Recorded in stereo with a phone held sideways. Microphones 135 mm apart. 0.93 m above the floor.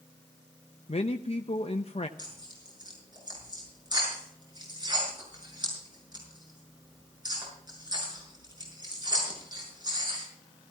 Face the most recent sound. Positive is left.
turn(degrees=-30)  # may be behind; listen again after turning